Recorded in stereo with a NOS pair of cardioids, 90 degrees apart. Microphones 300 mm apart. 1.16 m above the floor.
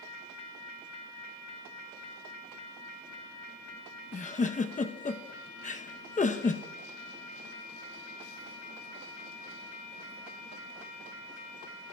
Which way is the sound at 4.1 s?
25° left.